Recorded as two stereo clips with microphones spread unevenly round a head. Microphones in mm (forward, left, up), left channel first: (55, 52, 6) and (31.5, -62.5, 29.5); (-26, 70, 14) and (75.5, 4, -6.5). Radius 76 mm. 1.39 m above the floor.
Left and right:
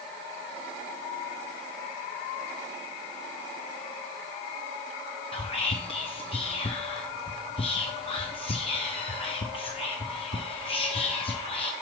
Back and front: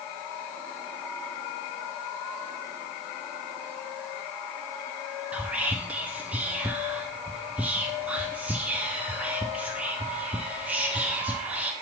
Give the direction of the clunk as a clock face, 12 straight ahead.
I don't hear a clunk.